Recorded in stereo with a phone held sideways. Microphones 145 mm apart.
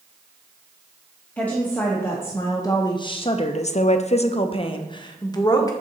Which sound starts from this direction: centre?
A woman speaking, at 1.4 s.